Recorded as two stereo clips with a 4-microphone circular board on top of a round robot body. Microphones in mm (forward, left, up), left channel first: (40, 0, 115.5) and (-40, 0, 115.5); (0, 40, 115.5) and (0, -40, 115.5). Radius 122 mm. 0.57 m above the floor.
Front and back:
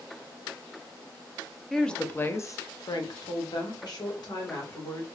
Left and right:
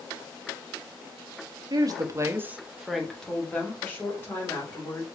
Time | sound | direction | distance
1.7 | a woman speaking | 85° right | 0.8 m